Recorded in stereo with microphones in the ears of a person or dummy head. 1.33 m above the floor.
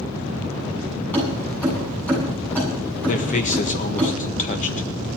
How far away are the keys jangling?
About 8.5 m.